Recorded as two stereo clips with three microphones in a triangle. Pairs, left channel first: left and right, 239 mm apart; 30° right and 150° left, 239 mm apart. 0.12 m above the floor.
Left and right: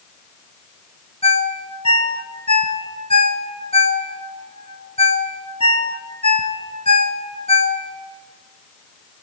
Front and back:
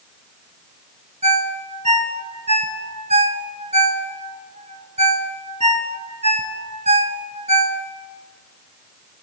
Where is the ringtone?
125° left, 0.7 m.